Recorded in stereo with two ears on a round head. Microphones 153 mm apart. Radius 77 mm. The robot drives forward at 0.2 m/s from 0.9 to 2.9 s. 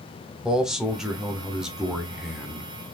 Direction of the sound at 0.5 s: 5° right (ahead or behind).